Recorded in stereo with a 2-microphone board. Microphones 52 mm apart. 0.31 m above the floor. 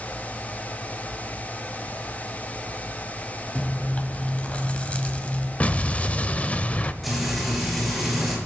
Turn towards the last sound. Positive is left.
turn(degrees=0)  # may be behind; listen again after turning